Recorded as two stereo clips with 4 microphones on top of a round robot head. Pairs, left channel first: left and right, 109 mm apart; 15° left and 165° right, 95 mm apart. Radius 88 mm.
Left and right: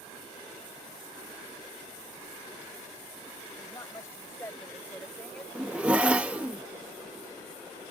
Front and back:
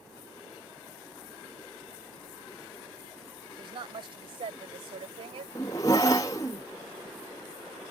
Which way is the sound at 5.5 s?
20° right.